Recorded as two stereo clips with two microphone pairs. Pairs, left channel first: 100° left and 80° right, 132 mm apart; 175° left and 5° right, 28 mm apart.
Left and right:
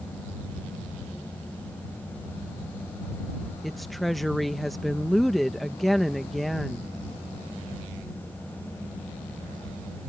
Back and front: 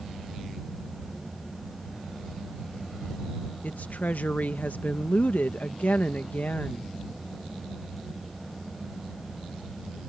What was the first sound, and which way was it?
A woman speaking, 170° right.